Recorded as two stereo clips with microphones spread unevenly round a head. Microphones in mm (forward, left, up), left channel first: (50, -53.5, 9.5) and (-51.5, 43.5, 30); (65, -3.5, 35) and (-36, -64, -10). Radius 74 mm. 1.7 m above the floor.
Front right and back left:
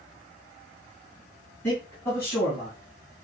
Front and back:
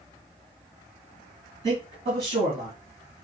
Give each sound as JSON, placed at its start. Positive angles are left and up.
{"t": 1.6, "sound": "a man speaking", "azimuth_deg": -120, "distance_m": 3.0}